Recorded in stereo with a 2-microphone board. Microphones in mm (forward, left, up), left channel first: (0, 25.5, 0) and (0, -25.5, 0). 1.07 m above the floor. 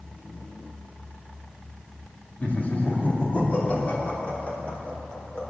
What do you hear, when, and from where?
2.4 s laughter: 35° left (ahead or behind), 2 m; by 5.4 s 30° left (ahead or behind), 4 m